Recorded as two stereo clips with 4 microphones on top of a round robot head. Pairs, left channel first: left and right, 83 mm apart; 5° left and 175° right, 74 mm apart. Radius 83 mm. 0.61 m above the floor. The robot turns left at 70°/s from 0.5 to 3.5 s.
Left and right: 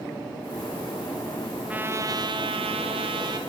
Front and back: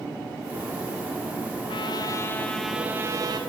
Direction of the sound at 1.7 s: 15° right.